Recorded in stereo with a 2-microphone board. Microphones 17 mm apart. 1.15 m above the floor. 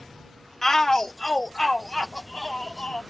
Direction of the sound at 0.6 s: 25° left (ahead or behind).